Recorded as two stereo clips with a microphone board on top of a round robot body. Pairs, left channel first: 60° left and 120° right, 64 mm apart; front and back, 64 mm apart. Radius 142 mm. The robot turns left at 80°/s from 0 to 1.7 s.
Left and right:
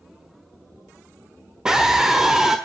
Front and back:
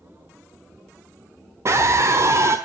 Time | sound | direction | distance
1.6 | a scream | 165° left | 1.4 m